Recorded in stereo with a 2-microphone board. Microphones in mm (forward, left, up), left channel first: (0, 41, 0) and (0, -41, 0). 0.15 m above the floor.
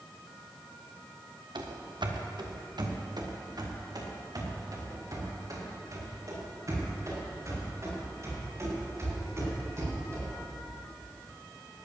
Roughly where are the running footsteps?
Right.